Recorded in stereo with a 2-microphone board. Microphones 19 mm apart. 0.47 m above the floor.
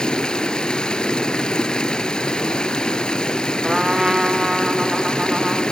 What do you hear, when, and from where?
0.0 s running water: 45° left (ahead or behind), 1.3 m
3.6 s a trumpet: 30° right (ahead or behind), 1.4 m